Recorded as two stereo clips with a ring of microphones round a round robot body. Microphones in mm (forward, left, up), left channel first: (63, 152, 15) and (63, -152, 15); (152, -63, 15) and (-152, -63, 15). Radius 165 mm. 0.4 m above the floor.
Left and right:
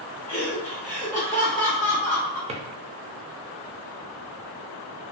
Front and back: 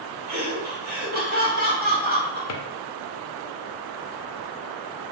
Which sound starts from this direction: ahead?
A drawer, at 2.5 s.